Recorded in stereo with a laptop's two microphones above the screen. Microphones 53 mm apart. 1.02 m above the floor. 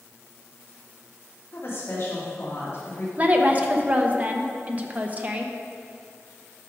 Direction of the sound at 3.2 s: 30° right (ahead or behind).